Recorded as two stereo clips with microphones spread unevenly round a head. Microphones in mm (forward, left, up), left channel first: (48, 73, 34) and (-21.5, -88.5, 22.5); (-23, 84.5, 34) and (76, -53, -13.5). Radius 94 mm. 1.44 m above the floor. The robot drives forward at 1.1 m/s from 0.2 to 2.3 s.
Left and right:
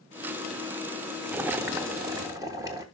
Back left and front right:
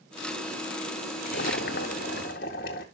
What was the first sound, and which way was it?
Boiling, 165° left.